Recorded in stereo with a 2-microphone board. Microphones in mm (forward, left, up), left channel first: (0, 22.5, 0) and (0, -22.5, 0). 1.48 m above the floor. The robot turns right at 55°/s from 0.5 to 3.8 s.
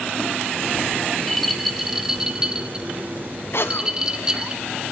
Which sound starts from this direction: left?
A cough, at 3.5 s.